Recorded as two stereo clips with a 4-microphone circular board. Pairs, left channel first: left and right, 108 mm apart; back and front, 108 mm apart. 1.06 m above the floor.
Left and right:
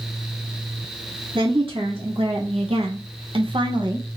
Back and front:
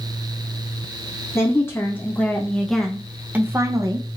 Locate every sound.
1.4 s a woman speaking: 120° right, 1.4 m; by 4.2 s 35° right, 0.8 m